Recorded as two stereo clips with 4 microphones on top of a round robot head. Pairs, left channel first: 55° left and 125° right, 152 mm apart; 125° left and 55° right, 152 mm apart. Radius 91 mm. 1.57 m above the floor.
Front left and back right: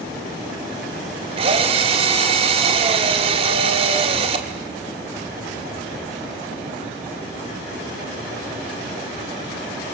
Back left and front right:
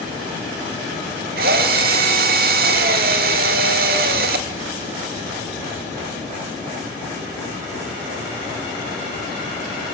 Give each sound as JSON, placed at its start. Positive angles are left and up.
{"t": 1.4, "sound": "a drill", "azimuth_deg": -75, "distance_m": 1.6}